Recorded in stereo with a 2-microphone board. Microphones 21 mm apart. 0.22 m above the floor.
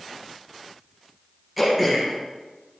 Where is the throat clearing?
10° right (ahead or behind), 3 m.